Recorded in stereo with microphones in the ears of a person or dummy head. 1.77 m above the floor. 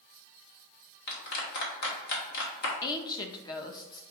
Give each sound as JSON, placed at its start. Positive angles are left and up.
{"t": 1.1, "sound": "a clap", "side_deg": 65, "distance_m": 1.4}
{"t": 2.8, "sound": "a woman speaking", "side_deg": 30, "distance_m": 0.6}